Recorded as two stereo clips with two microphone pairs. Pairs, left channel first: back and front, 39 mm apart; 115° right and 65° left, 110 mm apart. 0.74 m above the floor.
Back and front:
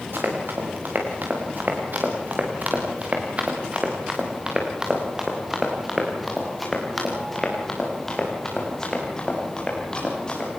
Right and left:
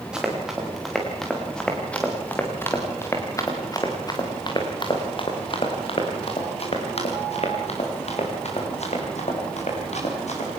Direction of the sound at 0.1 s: 20° right.